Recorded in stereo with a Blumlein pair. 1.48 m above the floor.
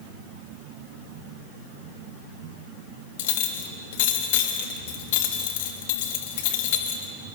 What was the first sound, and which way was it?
A clink, 50° left.